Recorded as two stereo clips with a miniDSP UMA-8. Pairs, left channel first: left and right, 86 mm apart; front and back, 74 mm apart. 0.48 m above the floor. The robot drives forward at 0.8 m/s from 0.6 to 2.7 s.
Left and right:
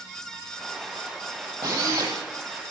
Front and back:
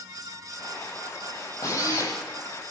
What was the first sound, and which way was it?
A drill, 50° right.